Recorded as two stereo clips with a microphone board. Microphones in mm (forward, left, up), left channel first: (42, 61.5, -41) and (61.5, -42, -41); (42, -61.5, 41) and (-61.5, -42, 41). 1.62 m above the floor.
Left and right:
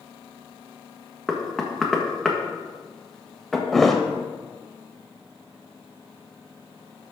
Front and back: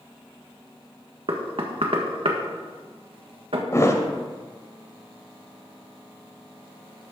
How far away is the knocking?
About 1.6 m.